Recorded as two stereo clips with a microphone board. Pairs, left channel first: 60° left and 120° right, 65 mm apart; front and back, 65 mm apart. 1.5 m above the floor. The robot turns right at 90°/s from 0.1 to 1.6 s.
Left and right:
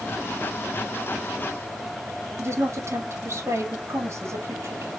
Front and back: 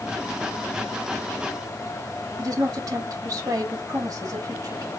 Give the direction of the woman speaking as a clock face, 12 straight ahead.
5 o'clock.